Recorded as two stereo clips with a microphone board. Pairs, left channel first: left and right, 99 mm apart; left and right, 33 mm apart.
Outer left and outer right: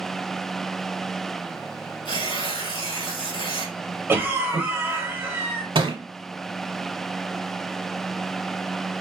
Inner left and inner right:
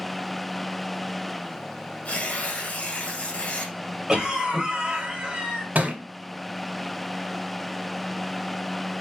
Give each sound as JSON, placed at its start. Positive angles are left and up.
{"t": 2.0, "sound": "tearing paper", "side_deg": 50, "distance_m": 1.4}
{"t": 4.1, "sound": "a cough", "side_deg": -20, "distance_m": 1.2}
{"t": 5.8, "sound": "a thud", "side_deg": -60, "distance_m": 1.2}